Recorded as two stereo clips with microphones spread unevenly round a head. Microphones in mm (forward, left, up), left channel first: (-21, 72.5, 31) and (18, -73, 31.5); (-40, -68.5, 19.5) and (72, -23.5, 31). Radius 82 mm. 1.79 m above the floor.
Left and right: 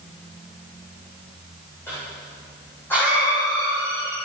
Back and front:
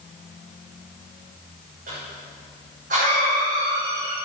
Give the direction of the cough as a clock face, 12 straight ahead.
11 o'clock.